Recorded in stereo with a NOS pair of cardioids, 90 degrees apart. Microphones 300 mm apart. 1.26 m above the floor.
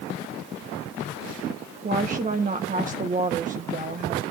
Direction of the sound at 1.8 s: 25° right.